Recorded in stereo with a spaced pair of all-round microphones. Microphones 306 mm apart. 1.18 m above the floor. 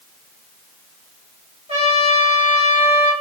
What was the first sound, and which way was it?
A trumpet, 20° right (ahead or behind).